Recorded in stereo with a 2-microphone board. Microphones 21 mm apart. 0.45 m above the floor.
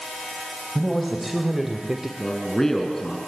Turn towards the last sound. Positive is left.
turn(degrees=20)  # may be behind; listen again after turning